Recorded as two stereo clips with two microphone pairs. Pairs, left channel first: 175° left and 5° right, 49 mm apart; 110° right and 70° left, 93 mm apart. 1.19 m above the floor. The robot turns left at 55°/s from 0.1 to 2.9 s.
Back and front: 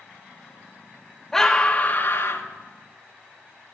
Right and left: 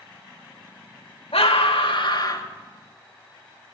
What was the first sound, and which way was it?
A scream, 105° right.